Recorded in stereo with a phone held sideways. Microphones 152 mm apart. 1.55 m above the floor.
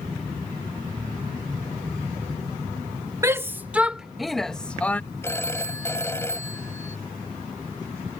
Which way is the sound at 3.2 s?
20° right (ahead or behind).